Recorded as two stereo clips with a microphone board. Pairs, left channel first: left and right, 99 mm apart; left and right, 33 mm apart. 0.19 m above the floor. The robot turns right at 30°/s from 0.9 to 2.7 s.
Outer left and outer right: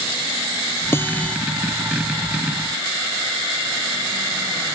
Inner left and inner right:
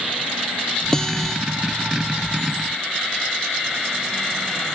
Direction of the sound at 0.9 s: 25° left (ahead or behind).